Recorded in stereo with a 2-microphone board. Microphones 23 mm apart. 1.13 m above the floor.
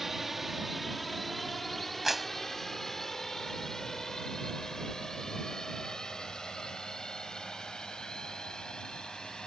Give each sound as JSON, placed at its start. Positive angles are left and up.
{"t": 0.0, "sound": "a drone", "side_deg": -15}
{"t": 2.0, "sound": "a clap", "side_deg": -10}